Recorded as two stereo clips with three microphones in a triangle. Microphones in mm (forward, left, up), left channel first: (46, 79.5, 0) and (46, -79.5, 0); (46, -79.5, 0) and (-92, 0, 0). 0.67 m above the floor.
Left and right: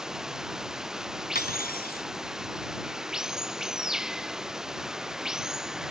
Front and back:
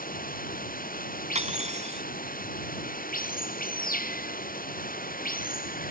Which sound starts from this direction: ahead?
Running water, at 0.0 s.